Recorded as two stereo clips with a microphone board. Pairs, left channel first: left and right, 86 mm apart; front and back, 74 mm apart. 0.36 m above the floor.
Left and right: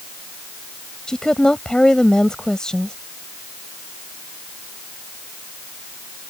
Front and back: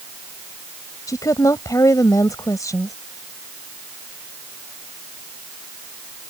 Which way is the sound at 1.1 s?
10° left.